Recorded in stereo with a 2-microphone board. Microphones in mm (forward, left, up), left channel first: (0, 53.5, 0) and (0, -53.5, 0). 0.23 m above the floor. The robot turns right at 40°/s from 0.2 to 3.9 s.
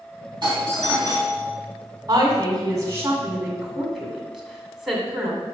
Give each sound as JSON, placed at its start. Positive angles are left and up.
{"t": 0.4, "sound": "a doorbell", "azimuth_deg": -75, "distance_m": 3.0}
{"t": 2.1, "sound": "a woman speaking", "side_deg": -45, "distance_m": 2.0}